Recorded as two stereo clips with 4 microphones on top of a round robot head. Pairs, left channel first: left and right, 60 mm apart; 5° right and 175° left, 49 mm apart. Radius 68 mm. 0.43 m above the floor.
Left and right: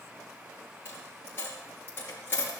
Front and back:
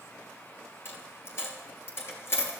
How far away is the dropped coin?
About 4 m.